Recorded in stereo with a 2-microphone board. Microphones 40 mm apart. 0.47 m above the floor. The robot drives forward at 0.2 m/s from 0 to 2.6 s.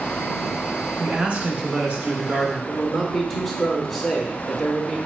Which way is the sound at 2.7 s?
Centre (ahead or behind).